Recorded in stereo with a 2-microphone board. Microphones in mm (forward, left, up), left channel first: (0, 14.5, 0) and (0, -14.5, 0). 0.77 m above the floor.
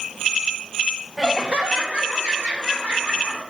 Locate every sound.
1.2 s laughter: 15° right (ahead or behind), 0.6 m; by 3.4 s 75° right (ahead or behind), 2.5 m